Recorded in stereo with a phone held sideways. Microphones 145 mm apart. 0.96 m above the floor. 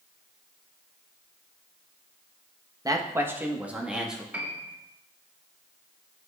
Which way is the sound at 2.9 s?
25° right (ahead or behind).